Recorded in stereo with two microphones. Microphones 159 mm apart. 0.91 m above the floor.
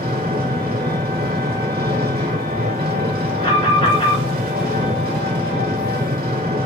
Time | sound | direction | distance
0.0 | an engine running | 70° right (ahead or behind) | 2 m
3.4 | an alarm | 35° left (ahead or behind) | 4.5 m